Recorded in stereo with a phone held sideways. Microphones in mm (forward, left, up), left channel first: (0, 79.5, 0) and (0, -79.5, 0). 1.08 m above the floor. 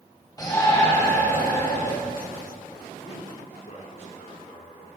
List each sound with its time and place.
0.4 s a shout: 25° left (ahead or behind), 5.5 m; by 1.9 s 20° left (ahead or behind), 6.5 m
3.0 s a man speaking: 50° left (ahead or behind), 3.5 m